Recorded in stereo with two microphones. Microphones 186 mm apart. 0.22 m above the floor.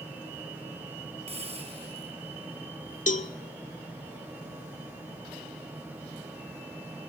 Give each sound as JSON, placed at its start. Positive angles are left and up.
{"t": 1.3, "sound": "a hiss", "side_deg": -35, "distance_m": 2.5}
{"t": 3.1, "sound": "a cowbell", "side_deg": 40, "distance_m": 0.6}